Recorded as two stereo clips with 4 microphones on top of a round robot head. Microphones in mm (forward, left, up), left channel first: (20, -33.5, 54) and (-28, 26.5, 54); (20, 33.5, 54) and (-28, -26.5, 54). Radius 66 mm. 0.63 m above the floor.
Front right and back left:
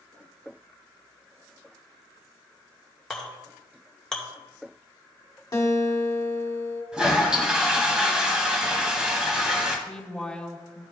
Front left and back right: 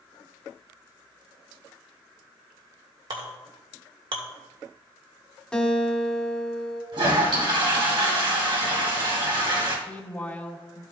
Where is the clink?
135° right, 1.8 m.